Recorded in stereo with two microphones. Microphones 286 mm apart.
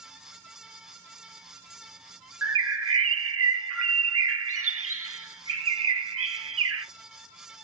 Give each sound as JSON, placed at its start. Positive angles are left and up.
{"t": 2.4, "sound": "a bird", "side_deg": -50, "distance_m": 0.8}